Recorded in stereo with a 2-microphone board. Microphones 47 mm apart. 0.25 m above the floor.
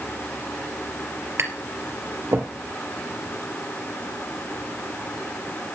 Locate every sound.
1.4 s tapping: 70° right (ahead or behind), 3 m